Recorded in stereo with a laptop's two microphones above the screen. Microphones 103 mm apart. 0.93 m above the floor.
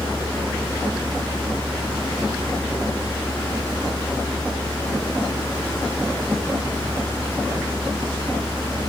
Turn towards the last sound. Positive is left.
turn(degrees=20)  # may be behind; listen again after turning